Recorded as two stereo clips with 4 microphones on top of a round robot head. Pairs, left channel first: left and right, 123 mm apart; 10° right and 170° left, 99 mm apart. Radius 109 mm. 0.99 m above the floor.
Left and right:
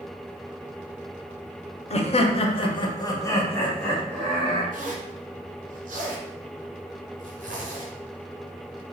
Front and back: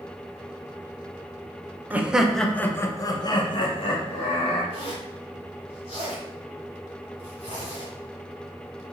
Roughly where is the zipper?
Ahead right.